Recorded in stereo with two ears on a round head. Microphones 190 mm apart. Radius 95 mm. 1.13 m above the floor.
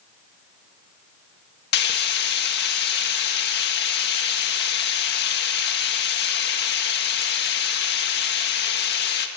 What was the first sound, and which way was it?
Frying, 50° left (ahead or behind).